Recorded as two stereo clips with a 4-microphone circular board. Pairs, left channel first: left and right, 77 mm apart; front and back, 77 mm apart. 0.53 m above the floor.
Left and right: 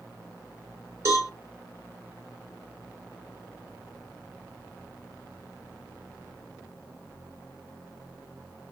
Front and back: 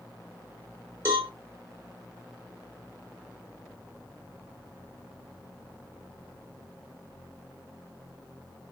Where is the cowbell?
130° right, 1.5 m.